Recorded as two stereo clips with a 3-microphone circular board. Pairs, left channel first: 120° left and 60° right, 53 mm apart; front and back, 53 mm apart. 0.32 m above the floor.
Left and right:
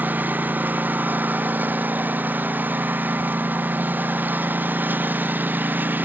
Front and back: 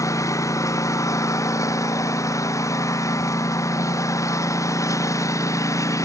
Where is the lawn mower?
5° right.